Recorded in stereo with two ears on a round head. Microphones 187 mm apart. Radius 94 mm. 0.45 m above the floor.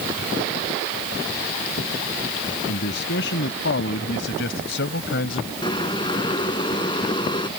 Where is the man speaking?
60° left (ahead or behind).